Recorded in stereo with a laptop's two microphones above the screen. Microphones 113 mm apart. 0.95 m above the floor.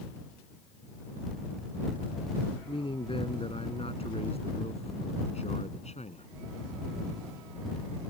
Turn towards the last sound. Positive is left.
turn(degrees=80)